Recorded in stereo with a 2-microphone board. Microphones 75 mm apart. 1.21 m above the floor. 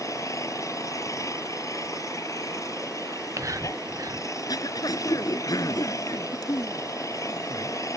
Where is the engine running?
45° left (ahead or behind).